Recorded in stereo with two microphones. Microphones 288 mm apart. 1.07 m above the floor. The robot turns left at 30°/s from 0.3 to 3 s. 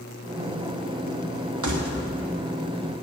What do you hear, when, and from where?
1.6 s keys jangling: 75° right (ahead or behind), 1.2 m; by 2.0 s 80° right, 1.2 m